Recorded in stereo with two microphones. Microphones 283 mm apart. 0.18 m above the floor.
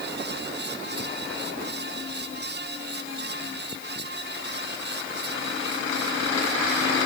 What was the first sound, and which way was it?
Only background noise.